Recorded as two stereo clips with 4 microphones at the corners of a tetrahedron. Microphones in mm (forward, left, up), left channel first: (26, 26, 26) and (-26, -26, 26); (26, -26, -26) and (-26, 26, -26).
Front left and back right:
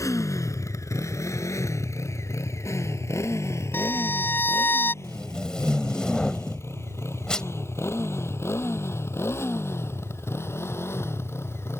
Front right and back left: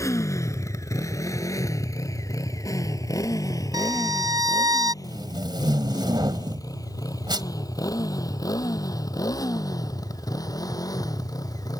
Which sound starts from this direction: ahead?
A motorcycle, at 0.0 s.